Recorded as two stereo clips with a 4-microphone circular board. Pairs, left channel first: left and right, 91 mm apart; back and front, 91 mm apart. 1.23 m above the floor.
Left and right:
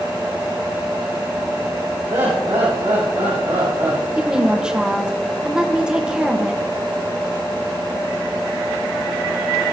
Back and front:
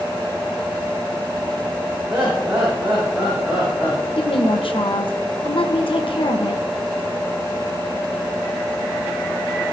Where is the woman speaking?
170° right, 1.2 m.